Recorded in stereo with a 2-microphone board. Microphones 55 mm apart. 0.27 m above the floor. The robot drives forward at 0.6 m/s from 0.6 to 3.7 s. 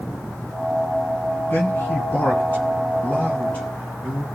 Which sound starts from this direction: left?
A man speaking, at 1.5 s.